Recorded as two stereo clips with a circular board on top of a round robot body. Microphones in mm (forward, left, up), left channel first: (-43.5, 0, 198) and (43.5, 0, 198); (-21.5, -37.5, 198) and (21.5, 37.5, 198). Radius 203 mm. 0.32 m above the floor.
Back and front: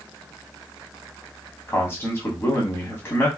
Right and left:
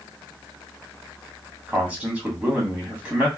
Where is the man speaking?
135° left, 1.8 m.